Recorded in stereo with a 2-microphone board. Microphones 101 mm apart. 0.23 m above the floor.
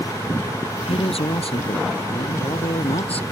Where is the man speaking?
75° left (ahead or behind).